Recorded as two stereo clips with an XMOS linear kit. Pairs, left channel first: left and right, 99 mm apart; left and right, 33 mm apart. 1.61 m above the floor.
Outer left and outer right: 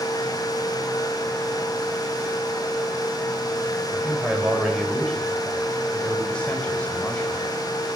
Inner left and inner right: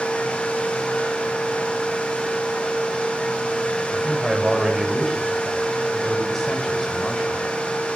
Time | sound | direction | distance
3.9 | a man speaking | 5° right (ahead or behind) | 9.5 m